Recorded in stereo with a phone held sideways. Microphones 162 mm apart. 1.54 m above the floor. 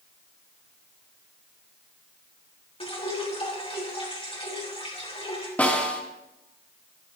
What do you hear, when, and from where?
2.8 s dripping: 40° left (ahead or behind), 3.5 m
5.6 s a snare drum: 10° left (ahead or behind), 2.5 m